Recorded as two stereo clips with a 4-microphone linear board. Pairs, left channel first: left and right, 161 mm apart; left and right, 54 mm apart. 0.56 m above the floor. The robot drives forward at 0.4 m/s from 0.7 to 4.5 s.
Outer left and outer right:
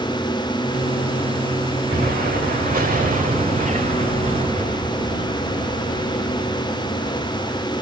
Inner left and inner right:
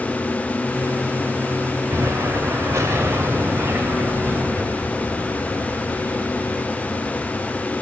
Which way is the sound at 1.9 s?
70° right (ahead or behind).